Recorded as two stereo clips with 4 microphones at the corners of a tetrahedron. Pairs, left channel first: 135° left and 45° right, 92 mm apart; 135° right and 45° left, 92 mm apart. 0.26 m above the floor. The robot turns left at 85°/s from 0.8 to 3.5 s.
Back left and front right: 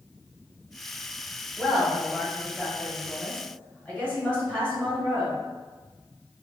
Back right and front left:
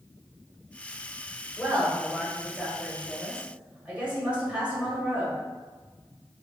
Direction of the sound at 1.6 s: 105° right.